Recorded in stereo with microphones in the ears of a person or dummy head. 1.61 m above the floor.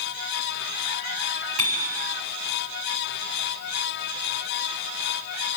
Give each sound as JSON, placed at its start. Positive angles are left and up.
{"t": 1.6, "sound": "a bicycle bell", "side_deg": -45, "distance_m": 8.0}